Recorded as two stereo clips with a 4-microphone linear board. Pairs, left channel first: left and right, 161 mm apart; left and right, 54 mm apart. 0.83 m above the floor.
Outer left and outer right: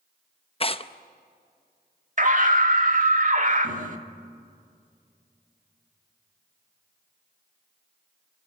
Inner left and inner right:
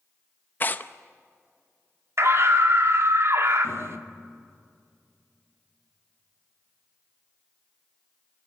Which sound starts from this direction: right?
A scream, at 2.2 s.